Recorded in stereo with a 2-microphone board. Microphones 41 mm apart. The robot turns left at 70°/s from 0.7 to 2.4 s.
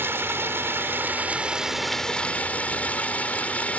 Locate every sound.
0.0 s running water: 105° right; by 3.8 s 140° left